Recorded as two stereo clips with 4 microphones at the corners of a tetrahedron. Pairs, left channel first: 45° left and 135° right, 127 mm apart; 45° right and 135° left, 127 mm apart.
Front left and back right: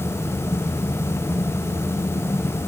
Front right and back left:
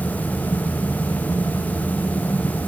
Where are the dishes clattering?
No dishes clattering in this recording.